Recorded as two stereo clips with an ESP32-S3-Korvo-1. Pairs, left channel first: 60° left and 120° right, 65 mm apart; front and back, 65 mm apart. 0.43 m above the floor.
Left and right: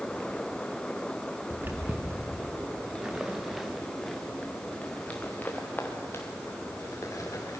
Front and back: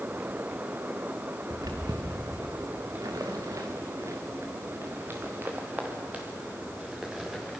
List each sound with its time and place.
1.5 s footsteps: 175° right, 3.5 m; by 7.6 s 100° left, 4.5 m